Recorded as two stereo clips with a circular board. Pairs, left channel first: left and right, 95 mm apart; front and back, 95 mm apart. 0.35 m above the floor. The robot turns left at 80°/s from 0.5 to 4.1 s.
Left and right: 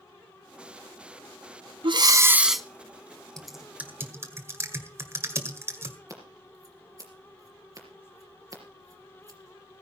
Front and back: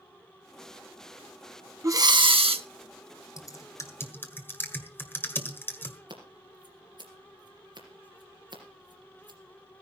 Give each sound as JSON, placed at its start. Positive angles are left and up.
{"t": 1.8, "sound": "breathing", "azimuth_deg": -120, "distance_m": 0.5}
{"t": 3.4, "sound": "typing on a keyboard", "azimuth_deg": 10, "distance_m": 1.6}
{"t": 6.1, "sound": "scissors", "azimuth_deg": -145, "distance_m": 3.5}